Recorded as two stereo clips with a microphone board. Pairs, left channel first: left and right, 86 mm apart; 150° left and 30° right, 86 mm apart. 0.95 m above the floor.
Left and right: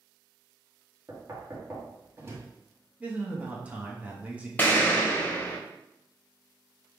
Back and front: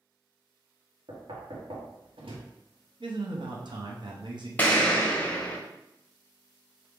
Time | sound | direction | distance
1.1 | knocking | 30° right | 1.0 m
3.0 | a man speaking | 20° right | 0.9 m
4.6 | an explosion | 125° left | 0.9 m